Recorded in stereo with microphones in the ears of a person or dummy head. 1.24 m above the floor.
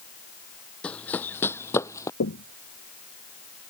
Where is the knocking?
65° left (ahead or behind).